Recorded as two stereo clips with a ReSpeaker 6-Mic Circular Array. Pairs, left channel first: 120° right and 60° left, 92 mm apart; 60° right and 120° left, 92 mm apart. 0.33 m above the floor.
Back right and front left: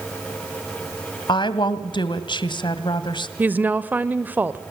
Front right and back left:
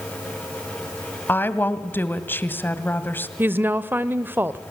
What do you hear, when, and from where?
1.3 s a woman speaking: 125° right, 1.7 m
3.4 s a woman speaking: 95° left, 0.9 m